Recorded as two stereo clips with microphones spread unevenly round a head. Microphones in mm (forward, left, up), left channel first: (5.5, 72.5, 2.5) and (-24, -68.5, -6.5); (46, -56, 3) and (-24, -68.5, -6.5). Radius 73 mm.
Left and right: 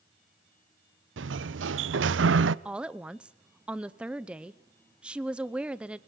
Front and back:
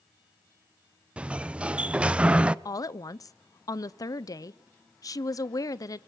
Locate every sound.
1.2 s a sliding door: 95° right, 0.6 m
2.6 s a woman speaking: 15° right, 0.7 m